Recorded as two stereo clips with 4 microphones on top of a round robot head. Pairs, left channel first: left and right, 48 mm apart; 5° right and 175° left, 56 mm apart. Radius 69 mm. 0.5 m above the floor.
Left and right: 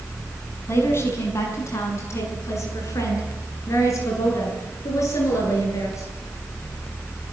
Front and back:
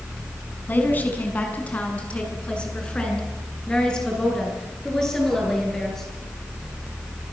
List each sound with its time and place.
0.7 s a woman speaking: 50° left, 5.5 m; by 6.1 s 80° left, 10.5 m